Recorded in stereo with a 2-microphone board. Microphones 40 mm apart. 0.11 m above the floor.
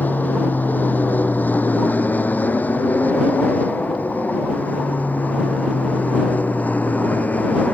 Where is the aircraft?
50° left (ahead or behind); by 7.7 s 40° left (ahead or behind).